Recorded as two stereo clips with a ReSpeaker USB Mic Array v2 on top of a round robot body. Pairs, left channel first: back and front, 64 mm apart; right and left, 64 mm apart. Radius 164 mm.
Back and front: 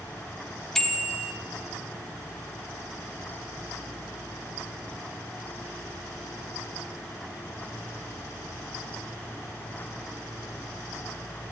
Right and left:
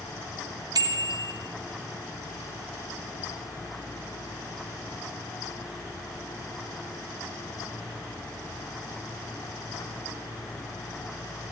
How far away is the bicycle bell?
About 2.5 m.